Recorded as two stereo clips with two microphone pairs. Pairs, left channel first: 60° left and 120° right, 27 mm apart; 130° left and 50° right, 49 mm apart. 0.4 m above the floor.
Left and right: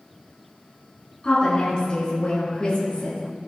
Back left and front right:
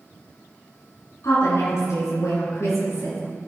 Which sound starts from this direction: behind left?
A woman speaking, at 1.2 s.